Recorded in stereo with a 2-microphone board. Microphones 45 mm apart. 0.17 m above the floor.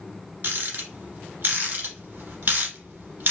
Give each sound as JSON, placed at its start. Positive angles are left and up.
{"t": 0.4, "sound": "a rattle", "side_deg": -45, "distance_m": 1.1}